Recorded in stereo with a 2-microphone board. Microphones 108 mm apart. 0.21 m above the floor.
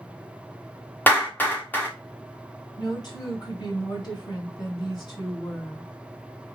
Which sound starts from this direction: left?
A woman speaking, at 2.8 s.